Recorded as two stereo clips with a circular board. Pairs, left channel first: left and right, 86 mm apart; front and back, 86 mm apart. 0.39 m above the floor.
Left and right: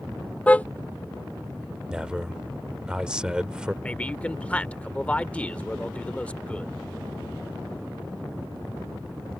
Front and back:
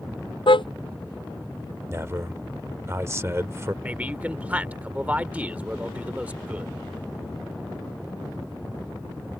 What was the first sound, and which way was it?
A car horn, 15° left.